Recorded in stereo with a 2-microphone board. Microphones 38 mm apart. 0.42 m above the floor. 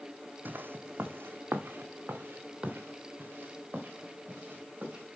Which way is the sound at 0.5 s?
55° right (ahead or behind).